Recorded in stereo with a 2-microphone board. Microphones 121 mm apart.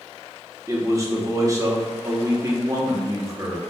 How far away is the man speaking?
About 0.9 m.